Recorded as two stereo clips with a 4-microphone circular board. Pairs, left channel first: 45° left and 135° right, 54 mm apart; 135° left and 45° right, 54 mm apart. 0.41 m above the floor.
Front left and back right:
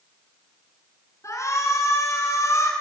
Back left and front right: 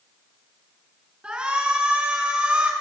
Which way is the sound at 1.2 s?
25° left.